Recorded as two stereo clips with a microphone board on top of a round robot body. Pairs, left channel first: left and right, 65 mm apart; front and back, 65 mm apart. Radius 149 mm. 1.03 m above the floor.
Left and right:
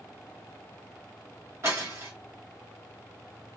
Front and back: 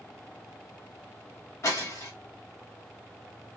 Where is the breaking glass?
45° right, 1.4 m.